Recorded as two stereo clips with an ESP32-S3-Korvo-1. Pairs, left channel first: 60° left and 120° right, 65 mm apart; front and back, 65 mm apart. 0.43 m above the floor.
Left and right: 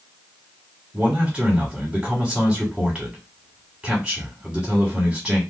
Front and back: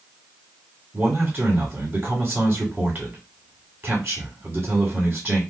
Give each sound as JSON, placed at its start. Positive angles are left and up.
{"t": 0.9, "sound": "a man speaking", "azimuth_deg": 165, "distance_m": 1.4}